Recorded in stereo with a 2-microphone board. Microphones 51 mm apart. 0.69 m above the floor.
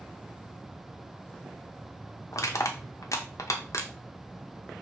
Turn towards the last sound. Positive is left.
turn(degrees=40)  # may be behind; listen again after turning